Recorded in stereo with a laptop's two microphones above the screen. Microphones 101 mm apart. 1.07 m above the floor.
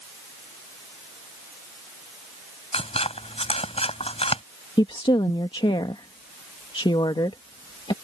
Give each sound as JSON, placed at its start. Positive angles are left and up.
{"t": 2.7, "sound": "scissors", "side_deg": 80}
{"t": 4.8, "sound": "a woman speaking", "side_deg": 55}